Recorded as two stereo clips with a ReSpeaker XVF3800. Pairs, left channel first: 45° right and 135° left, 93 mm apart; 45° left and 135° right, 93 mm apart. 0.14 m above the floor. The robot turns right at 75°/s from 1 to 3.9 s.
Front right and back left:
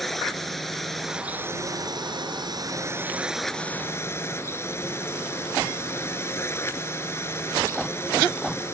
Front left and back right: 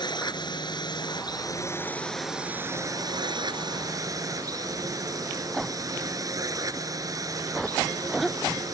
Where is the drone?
45° left; by 8.7 s 100° right.